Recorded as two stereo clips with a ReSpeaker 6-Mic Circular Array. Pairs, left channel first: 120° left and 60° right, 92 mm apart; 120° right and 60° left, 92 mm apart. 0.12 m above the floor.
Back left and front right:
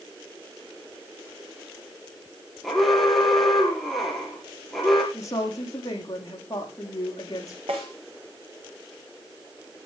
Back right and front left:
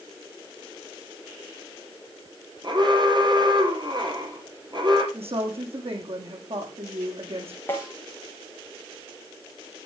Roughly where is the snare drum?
Ahead right.